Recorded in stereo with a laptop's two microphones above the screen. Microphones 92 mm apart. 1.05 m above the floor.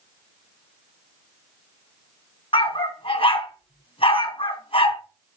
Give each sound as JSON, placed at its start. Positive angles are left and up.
{"t": 2.5, "sound": "a dog barking", "side_deg": 75, "distance_m": 3.5}